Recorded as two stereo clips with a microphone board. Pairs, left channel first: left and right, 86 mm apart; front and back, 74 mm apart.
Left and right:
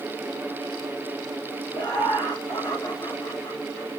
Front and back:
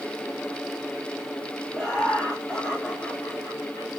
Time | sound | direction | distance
1.7 | laughter | 75° left | 2.5 m